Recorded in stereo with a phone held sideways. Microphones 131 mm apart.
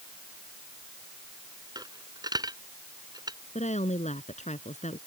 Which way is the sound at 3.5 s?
65° left (ahead or behind).